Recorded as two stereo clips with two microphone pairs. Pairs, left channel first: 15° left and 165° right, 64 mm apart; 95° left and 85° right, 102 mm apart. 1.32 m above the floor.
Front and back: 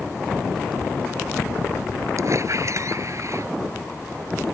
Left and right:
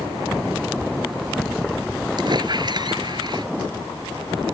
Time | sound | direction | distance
2.2 | a squeak | 130° right | ?